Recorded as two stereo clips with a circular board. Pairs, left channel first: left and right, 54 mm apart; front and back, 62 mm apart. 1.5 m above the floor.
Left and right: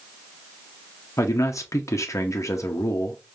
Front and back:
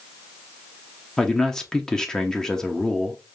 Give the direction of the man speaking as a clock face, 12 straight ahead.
9 o'clock.